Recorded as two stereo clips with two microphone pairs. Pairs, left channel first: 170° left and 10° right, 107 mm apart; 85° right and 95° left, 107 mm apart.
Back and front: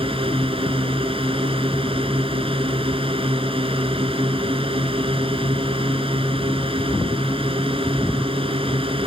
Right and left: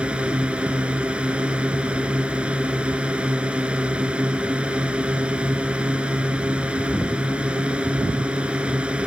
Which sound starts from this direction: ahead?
A drone, at 0.0 s.